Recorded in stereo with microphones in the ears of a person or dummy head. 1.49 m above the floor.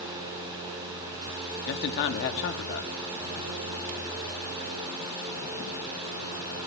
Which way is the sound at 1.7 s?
65° left (ahead or behind).